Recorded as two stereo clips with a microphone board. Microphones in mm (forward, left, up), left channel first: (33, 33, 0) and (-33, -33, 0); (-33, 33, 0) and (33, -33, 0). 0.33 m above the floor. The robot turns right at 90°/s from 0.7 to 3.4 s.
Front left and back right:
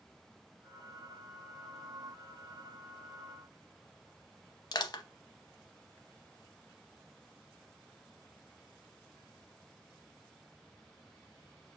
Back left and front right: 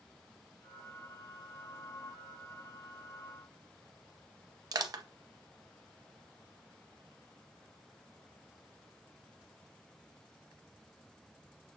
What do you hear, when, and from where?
4.7 s crushing: straight ahead, 0.5 m